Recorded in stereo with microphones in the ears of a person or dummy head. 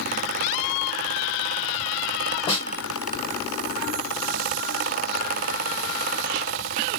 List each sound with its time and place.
2.5 s a snare drum: 25° left (ahead or behind), 1.6 m